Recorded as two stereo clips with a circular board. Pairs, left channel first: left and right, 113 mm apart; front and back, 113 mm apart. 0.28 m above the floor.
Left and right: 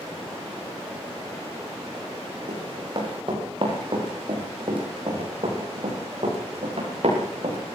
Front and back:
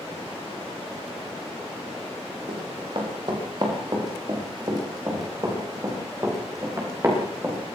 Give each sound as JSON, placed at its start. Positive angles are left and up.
{"t": 2.5, "sound": "running footsteps", "azimuth_deg": -135, "distance_m": 9.0}